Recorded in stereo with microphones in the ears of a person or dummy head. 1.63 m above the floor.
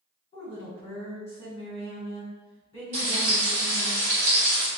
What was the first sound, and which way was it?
A woman speaking, 30° left (ahead or behind).